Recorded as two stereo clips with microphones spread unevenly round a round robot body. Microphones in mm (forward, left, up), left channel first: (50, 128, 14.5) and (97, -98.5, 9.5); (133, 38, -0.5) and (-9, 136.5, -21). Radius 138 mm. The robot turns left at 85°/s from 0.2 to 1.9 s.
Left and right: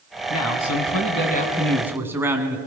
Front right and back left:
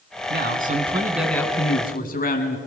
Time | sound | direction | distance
0.3 | a man speaking | 140° left | 3 m